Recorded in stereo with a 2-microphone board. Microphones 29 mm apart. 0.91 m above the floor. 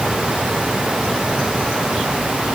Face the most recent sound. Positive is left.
No sound to turn to.